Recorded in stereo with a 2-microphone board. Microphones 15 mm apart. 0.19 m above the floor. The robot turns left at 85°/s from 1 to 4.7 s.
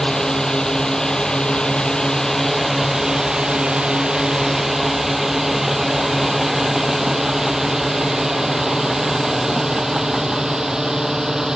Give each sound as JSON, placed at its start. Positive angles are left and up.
{"t": 0.0, "sound": "a drone", "side_deg": 50}